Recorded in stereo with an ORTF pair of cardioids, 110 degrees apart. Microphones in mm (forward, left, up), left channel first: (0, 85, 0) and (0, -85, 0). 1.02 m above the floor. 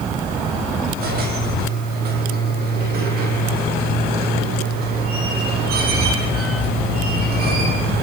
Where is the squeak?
65° right, 6.5 m.